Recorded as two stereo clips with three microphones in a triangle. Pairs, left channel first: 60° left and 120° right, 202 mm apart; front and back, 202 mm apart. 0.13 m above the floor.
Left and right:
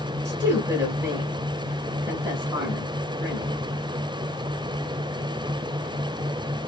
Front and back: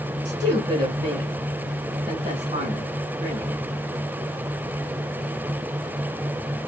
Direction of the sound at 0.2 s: 160° right.